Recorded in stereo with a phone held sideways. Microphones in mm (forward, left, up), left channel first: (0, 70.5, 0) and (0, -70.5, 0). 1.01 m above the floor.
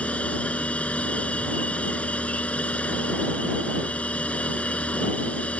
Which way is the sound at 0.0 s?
10° left (ahead or behind).